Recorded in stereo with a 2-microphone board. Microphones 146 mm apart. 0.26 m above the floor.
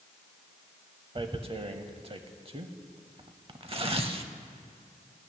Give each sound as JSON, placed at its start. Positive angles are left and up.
{"t": 1.1, "sound": "tearing paper", "side_deg": -40, "distance_m": 0.6}